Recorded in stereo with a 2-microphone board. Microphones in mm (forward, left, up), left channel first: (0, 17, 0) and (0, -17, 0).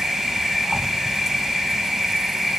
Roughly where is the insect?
Centre.